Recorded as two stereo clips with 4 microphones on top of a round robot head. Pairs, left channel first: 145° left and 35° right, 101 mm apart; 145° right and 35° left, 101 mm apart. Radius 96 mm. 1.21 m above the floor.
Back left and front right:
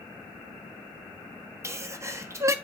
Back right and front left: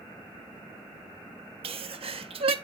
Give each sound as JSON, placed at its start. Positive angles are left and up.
{"t": 1.6, "sound": "a sneeze", "azimuth_deg": 25, "distance_m": 1.4}